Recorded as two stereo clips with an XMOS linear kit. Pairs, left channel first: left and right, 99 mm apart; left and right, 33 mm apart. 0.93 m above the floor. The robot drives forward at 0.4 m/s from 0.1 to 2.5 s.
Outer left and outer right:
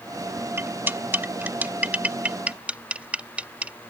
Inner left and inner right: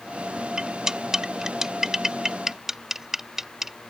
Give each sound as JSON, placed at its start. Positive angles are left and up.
{"t": 0.6, "sound": "cutlery clinking", "side_deg": -25}